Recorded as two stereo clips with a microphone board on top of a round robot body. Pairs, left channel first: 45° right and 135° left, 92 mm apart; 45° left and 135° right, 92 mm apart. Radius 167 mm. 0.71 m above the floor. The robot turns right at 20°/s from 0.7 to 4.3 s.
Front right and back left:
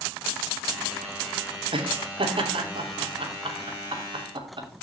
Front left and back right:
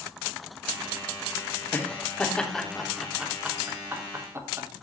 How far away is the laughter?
About 3 m.